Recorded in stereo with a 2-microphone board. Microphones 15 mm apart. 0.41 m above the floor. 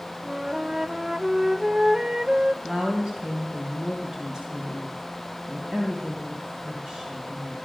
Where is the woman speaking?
45° right (ahead or behind), 3 m.